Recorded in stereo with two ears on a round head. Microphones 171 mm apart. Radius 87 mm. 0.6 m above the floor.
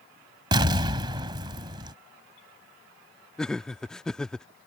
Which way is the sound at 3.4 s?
5° left (ahead or behind).